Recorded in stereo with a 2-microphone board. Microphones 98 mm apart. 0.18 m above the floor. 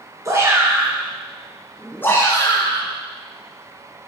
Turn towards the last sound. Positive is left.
turn(degrees=45)  # may be behind; listen again after turning